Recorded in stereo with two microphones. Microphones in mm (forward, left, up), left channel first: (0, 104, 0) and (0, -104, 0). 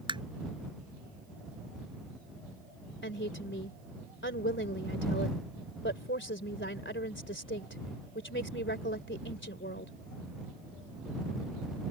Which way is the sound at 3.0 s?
65° left (ahead or behind).